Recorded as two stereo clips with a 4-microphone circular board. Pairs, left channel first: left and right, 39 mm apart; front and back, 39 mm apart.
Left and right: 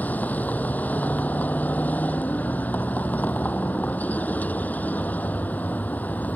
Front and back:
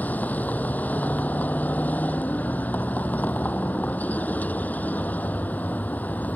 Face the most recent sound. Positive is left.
turn(degrees=45)